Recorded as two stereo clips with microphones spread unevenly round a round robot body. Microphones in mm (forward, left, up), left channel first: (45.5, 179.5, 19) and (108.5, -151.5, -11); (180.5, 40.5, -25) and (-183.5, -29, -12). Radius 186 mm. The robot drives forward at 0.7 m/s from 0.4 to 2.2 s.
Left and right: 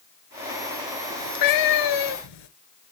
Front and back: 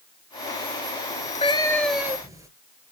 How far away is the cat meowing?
About 1.3 m.